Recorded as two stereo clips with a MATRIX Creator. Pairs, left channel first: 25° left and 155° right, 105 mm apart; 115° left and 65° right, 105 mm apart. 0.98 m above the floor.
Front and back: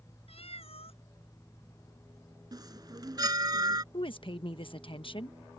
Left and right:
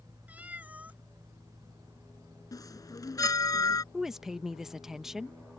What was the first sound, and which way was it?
A cat meowing, 5° left.